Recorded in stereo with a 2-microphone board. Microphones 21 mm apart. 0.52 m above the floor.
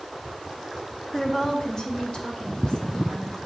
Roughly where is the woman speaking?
Centre.